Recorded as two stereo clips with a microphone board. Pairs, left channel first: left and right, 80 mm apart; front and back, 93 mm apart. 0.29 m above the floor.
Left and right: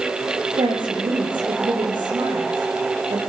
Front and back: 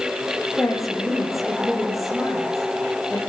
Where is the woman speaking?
90° right, 7.5 m.